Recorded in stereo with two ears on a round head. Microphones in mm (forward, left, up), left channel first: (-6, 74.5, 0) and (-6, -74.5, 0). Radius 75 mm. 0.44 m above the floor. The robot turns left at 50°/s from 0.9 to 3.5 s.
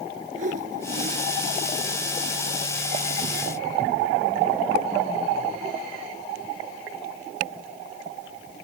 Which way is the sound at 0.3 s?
50° right (ahead or behind).